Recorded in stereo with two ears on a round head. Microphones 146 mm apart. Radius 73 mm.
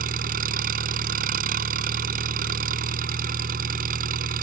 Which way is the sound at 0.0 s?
55° right (ahead or behind).